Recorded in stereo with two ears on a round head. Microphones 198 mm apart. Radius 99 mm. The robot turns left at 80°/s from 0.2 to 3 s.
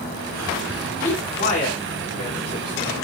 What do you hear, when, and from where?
1.0 s a man speaking: 5° left (ahead or behind), 1.7 m; by 2.9 s 10° left (ahead or behind), 1.7 m